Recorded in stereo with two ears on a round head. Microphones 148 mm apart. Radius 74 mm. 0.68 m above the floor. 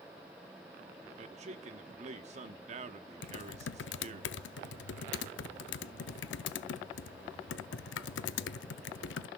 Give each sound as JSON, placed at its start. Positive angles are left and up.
{"t": 1.2, "sound": "a man speaking", "side_deg": -45, "distance_m": 1.0}
{"t": 3.2, "sound": "typing on a keyboard", "side_deg": 80, "distance_m": 0.5}